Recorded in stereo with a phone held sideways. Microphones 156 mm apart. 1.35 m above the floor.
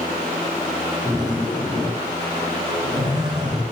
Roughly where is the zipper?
Right.